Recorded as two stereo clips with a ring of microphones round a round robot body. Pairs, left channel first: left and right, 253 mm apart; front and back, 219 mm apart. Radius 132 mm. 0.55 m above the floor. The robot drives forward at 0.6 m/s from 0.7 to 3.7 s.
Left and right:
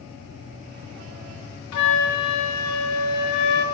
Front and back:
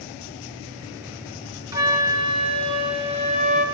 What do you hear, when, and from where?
1.7 s a flute: 105° left, 3.5 m; by 3.6 s 120° left, 4 m